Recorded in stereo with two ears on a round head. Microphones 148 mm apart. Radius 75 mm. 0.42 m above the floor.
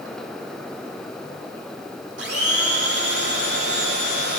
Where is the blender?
80° right, 4 m.